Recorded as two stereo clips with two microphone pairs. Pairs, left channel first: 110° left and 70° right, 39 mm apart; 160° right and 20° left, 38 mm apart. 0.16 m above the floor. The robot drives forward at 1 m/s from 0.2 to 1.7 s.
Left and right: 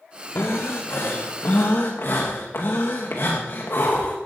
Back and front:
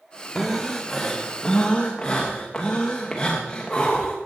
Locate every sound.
0.3 s breathing: 100° left, 2.5 m; by 4.2 s 130° left, 3 m